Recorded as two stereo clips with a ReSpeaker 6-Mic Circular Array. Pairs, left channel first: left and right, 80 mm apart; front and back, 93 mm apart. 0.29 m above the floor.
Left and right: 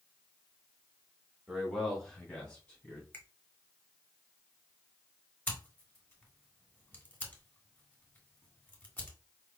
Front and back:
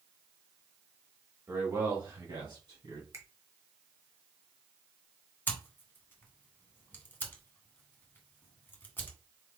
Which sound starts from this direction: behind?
A man speaking, at 1.5 s.